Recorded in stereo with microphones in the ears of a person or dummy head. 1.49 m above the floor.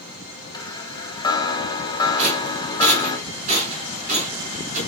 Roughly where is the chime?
Centre.